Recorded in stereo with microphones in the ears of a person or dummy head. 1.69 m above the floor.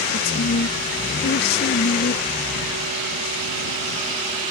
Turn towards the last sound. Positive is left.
turn(degrees=60)  # may be behind; listen again after turning